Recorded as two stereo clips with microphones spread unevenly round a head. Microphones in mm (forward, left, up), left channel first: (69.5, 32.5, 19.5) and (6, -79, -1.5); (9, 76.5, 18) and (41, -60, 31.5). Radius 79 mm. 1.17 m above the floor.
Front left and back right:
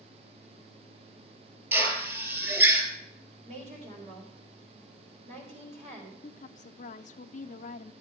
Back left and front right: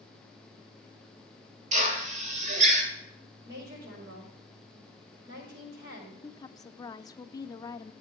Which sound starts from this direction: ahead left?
A woman speaking, at 6.2 s.